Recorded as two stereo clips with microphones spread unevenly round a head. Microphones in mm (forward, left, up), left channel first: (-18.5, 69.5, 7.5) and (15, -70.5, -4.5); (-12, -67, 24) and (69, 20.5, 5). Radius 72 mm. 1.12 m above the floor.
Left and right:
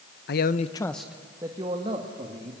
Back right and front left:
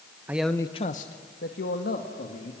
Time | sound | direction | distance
0.3 | a man speaking | 120° left | 0.9 m